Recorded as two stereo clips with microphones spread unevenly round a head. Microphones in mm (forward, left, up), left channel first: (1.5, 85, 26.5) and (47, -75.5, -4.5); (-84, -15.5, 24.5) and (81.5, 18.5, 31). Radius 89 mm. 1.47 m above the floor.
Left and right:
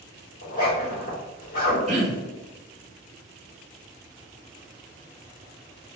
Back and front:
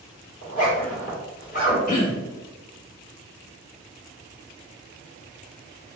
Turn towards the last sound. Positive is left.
turn(degrees=-125)